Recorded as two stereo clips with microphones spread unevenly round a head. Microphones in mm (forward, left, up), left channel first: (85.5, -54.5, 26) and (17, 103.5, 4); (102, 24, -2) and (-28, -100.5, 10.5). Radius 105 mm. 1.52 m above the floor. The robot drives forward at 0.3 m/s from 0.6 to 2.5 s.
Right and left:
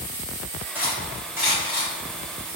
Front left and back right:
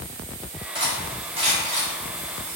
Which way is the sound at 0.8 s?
160° right.